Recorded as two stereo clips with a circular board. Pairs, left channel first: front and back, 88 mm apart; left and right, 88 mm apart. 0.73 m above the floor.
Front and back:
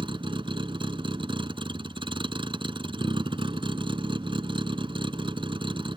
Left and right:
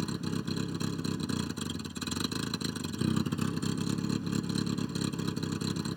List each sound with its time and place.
0.0 s a vehicle: straight behind